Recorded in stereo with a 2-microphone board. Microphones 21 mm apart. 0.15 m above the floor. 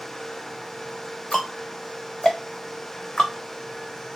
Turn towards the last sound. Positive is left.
turn(degrees=35)  # may be behind; listen again after turning